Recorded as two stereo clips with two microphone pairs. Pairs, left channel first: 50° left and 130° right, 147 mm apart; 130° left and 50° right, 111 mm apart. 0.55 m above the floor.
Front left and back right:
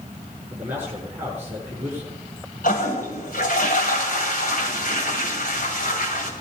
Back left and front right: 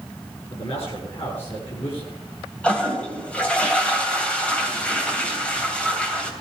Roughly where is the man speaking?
Behind left.